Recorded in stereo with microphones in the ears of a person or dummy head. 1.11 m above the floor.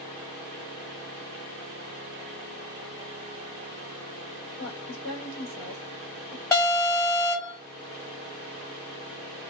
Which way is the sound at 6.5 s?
15° left (ahead or behind).